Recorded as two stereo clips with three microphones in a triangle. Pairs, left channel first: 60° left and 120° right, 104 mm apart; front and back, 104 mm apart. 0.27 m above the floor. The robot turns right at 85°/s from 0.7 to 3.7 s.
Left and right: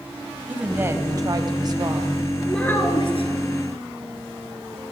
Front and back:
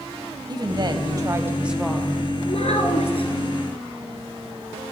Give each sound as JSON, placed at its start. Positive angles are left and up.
{"t": 0.5, "sound": "a woman speaking", "azimuth_deg": 170, "distance_m": 1.4}
{"t": 2.5, "sound": "a child speaking", "azimuth_deg": -30, "distance_m": 2.5}